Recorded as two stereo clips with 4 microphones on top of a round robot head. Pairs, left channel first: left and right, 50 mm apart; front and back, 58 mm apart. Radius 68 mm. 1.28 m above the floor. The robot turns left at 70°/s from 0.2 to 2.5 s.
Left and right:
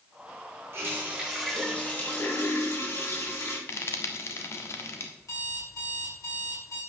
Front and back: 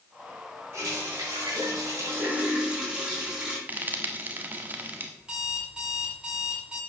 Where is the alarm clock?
105° left, 5.5 m.